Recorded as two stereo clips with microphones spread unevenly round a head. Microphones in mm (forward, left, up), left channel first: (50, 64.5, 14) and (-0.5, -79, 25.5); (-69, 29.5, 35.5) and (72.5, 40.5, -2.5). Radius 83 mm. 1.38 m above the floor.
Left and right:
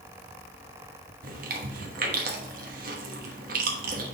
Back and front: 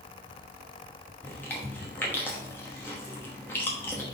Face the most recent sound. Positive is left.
turn(degrees=-110)